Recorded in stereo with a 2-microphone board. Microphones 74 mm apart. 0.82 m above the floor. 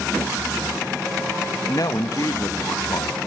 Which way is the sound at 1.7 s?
55° left (ahead or behind).